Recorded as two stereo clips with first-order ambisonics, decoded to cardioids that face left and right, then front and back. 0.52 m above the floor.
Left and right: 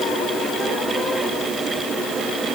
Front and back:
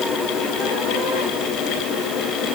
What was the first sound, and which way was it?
Only background noise.